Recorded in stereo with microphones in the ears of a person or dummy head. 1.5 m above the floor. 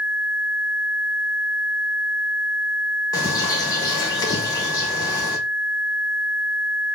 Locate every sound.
3.1 s a bird: 20° left (ahead or behind), 1.4 m